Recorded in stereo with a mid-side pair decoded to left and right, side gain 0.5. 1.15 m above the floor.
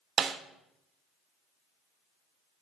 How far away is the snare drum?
About 1.2 m.